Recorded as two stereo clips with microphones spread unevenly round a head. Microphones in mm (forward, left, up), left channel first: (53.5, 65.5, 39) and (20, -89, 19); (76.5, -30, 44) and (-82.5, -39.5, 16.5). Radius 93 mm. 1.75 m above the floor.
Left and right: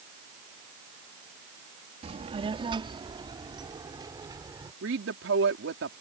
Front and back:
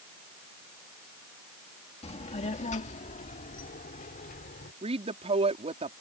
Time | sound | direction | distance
2.0 | a child speaking | 45° right | ?
4.8 | a woman speaking | 120° right | ?